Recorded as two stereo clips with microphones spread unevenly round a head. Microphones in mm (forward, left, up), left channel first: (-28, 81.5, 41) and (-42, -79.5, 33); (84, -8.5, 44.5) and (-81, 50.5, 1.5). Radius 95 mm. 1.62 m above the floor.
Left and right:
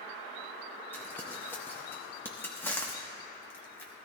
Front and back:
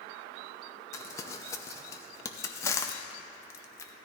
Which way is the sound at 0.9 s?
15° left.